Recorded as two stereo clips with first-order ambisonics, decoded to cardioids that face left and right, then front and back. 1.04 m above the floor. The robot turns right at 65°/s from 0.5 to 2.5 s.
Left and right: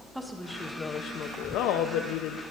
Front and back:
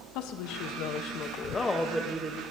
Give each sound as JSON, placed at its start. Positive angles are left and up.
{"t": 0.1, "sound": "a woman speaking", "azimuth_deg": 0, "distance_m": 0.9}